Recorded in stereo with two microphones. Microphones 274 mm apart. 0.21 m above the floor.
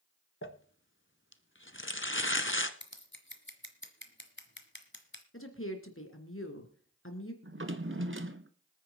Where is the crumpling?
45° left (ahead or behind), 1.0 m.